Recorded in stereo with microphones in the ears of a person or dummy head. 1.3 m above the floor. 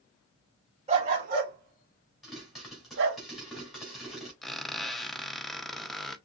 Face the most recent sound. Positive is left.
turn(degrees=5)  # may be behind; listen again after turning